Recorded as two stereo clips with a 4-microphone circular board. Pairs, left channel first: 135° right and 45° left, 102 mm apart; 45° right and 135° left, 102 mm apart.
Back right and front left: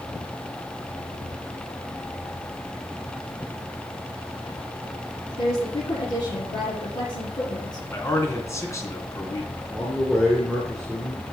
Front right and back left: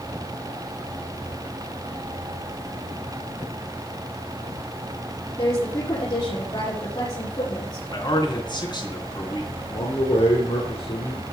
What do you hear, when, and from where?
5.4 s a woman speaking: 90° right, 6.5 m
7.9 s a man speaking: 80° right, 3 m
9.7 s a man speaking: 45° right, 3 m